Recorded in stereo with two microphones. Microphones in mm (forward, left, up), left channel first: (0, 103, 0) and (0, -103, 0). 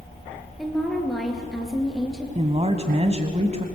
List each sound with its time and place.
0.6 s a woman speaking: centre (ahead or behind), 4 m
2.4 s a woman speaking: 30° right (ahead or behind), 1.4 m